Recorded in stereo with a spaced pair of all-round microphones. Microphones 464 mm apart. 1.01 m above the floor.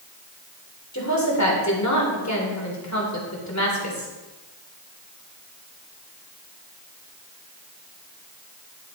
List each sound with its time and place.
0.9 s a woman speaking: 35° left (ahead or behind), 3.5 m